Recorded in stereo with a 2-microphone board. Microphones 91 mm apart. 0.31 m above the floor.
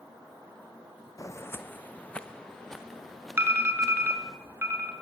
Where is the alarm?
25° right (ahead or behind), 4.5 m.